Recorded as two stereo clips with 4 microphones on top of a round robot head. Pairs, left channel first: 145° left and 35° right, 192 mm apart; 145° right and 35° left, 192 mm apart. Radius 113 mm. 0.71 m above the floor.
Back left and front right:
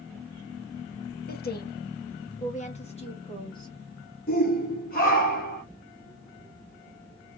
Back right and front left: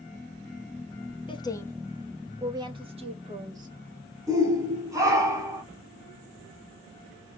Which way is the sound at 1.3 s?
155° left.